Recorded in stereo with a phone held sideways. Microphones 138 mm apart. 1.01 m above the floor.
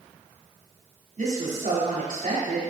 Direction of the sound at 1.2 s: 70° right (ahead or behind).